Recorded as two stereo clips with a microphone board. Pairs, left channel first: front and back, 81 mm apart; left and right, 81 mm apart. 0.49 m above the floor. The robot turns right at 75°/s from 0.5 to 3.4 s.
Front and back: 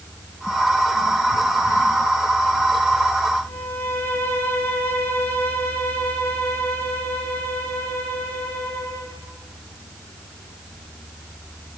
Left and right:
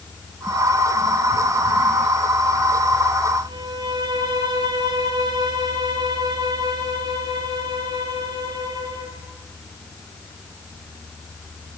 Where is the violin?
65° right, 4 m.